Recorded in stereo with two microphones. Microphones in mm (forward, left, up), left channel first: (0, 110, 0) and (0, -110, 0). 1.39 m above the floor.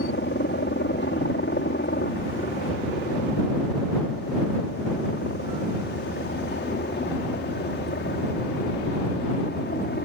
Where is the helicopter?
55° left (ahead or behind); by 10.1 s 50° left (ahead or behind).